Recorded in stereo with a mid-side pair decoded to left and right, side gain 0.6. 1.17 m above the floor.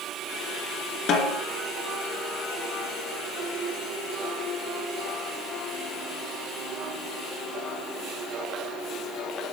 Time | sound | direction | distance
1.1 | a snare drum | 55° left | 1.9 m